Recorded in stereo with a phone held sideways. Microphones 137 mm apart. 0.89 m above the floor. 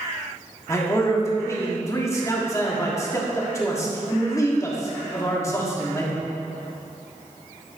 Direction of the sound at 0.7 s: 20° left (ahead or behind).